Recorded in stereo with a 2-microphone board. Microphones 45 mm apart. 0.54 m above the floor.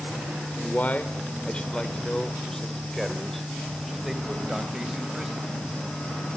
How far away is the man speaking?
About 2.0 m.